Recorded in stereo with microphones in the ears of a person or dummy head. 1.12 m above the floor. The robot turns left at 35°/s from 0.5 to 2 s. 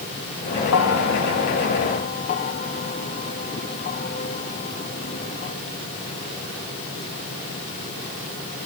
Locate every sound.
0.7 s a bell: 85° left; by 5.5 s 40° left (ahead or behind)